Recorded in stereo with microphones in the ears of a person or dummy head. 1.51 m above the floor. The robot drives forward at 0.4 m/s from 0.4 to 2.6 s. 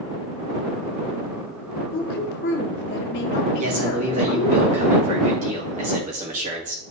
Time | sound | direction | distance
1.9 | a woman speaking | 55° left (ahead or behind) | 1.5 m
3.6 | a man speaking | 45° right (ahead or behind) | 2.5 m